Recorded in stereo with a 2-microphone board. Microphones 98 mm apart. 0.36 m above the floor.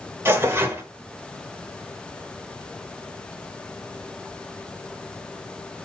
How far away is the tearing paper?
About 1.0 m.